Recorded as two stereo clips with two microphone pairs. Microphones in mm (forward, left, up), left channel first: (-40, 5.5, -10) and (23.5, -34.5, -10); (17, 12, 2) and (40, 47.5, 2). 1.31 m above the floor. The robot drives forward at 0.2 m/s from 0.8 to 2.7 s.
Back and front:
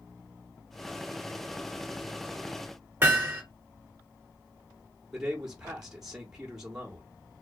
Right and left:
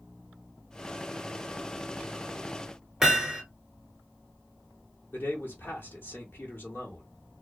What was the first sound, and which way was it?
Hammering, 10° right.